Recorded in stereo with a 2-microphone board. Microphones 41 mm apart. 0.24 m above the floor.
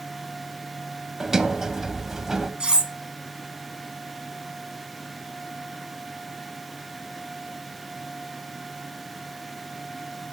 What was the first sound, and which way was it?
A sliding door, 10° right (ahead or behind).